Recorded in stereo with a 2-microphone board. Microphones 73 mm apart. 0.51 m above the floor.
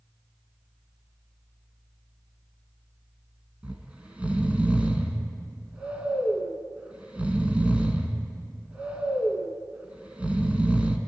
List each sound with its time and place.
3.6 s snoring: 20° right (ahead or behind), 2 m